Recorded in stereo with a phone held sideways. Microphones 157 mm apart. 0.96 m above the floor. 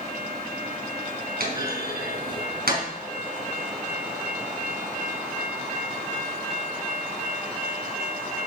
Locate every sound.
1.4 s a clunk: 80° right, 4 m